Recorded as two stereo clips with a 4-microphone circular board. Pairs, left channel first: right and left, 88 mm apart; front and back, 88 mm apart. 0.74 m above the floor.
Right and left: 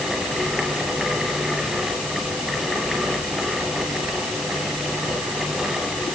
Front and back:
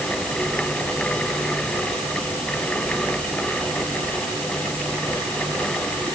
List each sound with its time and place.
Only background noise.